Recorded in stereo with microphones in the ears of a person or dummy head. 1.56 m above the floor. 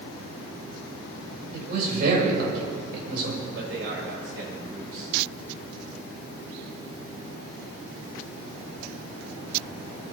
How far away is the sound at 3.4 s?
About 7.5 m.